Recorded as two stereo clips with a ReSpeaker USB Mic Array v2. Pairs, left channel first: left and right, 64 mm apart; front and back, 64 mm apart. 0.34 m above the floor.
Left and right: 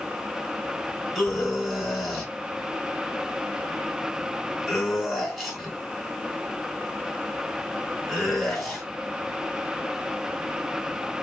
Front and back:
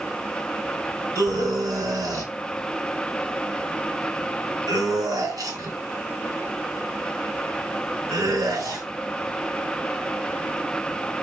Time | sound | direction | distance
1.1 | a scream | straight behind | 3 m